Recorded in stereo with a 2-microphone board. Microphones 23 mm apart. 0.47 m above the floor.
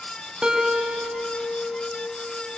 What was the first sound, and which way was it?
A guitar, 40° right (ahead or behind).